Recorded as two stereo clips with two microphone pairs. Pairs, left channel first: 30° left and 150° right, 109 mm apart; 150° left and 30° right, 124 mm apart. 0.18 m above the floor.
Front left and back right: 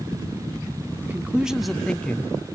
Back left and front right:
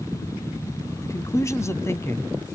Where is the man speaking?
170° left, 1.2 m; by 2.3 s 90° left, 1.4 m.